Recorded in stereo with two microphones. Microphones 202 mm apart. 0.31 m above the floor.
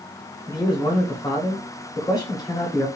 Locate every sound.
0.5 s a man speaking: 20° left (ahead or behind), 1.1 m